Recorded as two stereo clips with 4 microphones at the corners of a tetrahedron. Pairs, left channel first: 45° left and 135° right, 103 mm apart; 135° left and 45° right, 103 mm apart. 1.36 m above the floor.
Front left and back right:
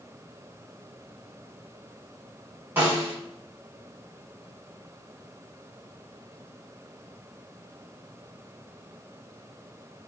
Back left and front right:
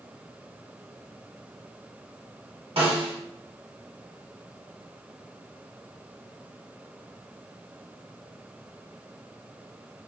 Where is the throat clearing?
I don't hear throat clearing.